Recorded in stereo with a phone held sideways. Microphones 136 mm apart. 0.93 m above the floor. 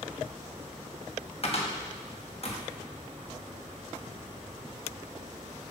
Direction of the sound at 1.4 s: 50° left (ahead or behind).